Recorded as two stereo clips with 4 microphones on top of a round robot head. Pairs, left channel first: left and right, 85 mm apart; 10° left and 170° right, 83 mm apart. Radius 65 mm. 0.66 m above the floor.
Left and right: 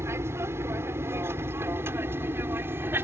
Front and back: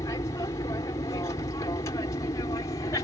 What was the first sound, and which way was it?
An aircraft, 35° right.